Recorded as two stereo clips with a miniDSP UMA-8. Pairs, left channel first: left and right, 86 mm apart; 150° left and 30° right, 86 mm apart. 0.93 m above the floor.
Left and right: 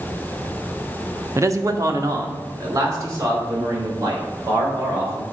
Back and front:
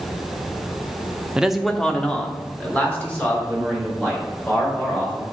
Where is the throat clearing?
I don't hear throat clearing.